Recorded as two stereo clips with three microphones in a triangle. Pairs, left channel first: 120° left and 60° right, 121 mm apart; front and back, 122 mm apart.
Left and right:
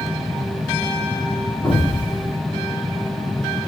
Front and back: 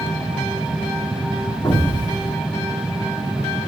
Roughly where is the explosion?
Ahead left.